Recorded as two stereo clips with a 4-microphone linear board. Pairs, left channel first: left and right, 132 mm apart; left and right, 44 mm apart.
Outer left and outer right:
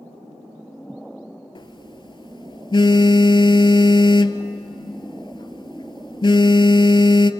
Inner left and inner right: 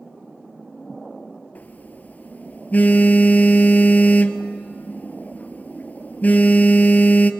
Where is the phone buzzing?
40° left (ahead or behind), 0.7 m.